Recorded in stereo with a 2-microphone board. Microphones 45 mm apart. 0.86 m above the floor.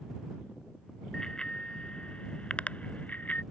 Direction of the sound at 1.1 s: 15° left (ahead or behind).